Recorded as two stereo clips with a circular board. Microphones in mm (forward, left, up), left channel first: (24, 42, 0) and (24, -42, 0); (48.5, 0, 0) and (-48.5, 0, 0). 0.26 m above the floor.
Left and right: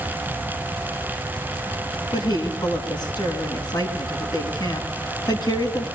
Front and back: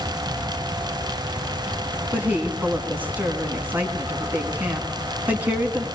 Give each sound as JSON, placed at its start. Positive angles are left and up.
{"t": 2.1, "sound": "a woman speaking", "azimuth_deg": 110, "distance_m": 3.0}